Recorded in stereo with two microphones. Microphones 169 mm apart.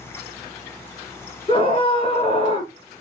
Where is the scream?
35° left (ahead or behind), 1.5 m.